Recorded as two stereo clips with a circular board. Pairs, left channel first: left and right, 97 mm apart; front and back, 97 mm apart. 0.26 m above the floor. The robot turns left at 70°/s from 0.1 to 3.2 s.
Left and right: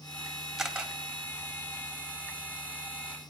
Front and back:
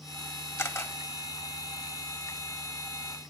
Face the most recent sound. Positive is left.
turn(degrees=170)